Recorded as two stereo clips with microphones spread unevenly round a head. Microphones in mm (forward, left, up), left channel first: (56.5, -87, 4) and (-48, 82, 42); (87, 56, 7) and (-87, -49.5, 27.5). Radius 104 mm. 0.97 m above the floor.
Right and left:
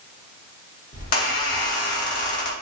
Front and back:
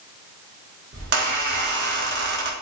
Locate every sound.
0.9 s a squeak: 110° right, 0.9 m